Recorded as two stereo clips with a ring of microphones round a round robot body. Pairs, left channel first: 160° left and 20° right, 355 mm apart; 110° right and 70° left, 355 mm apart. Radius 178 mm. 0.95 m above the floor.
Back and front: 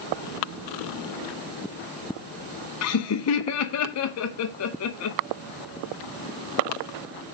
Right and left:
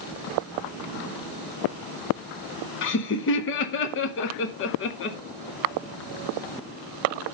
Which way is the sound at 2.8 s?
165° right.